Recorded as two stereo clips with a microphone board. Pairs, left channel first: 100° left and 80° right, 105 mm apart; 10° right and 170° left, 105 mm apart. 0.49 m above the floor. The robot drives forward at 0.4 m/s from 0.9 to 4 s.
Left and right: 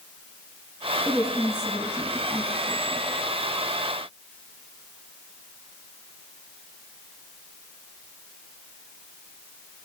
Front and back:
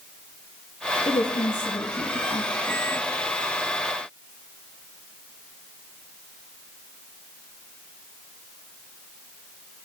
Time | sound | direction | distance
1.1 | a woman speaking | 30° left | 4 m